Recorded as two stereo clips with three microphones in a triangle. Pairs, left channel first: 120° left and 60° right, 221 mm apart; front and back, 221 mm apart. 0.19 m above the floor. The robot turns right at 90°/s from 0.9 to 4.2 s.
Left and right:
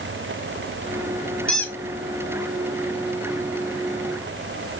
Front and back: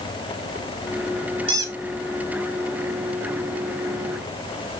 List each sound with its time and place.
1.5 s a squeak: 50° right, 1.0 m; by 1.8 s 25° right, 1.0 m